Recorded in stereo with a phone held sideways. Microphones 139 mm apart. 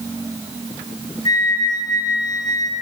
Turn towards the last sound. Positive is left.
turn(degrees=30)  # may be behind; listen again after turning